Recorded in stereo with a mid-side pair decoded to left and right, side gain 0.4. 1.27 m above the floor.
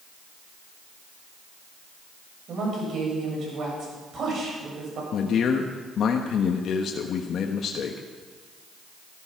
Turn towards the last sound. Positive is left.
turn(degrees=65)